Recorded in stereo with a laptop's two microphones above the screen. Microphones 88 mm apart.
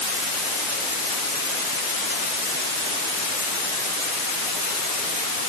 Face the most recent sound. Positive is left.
No sound to turn to.